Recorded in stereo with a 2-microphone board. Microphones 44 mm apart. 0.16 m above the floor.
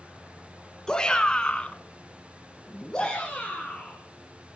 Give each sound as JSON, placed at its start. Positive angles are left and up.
{"t": 0.9, "sound": "a shout", "side_deg": 15, "distance_m": 2.0}